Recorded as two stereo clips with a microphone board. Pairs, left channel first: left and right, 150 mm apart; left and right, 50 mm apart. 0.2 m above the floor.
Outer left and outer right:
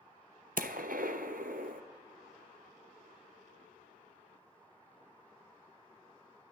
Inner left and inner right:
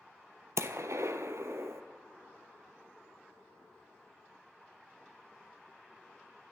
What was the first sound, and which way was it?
A gunshot, 70° right (ahead or behind).